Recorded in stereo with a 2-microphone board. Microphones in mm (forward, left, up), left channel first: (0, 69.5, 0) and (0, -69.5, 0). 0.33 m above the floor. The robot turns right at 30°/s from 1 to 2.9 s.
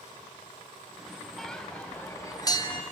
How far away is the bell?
About 2.5 m.